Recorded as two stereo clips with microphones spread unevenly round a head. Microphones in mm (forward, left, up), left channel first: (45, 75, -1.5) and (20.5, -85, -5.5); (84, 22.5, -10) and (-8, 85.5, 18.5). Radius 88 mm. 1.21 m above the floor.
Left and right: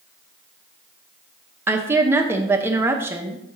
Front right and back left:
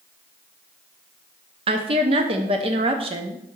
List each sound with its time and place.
1.7 s a woman speaking: 170° right, 0.6 m